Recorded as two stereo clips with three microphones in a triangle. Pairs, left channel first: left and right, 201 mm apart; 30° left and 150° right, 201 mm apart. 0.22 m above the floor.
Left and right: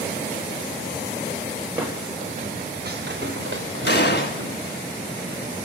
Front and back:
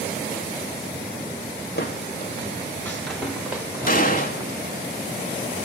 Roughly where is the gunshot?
Left.